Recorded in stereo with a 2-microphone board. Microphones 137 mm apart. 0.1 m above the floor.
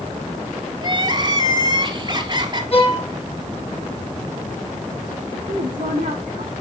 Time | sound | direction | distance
0.8 | crying | 30° right (ahead or behind) | 1.3 m
2.7 | a violin | 45° left (ahead or behind) | 2 m
5.5 | a woman speaking | 65° right (ahead or behind) | 6.5 m